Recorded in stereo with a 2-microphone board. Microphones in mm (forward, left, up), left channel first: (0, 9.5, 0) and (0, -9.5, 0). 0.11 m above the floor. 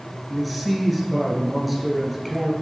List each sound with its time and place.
0.3 s a man speaking: 5° left (ahead or behind), 1.4 m